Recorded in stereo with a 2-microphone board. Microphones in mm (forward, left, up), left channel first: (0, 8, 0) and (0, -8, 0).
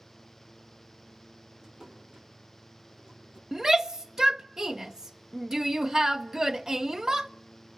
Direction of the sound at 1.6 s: 45° right (ahead or behind).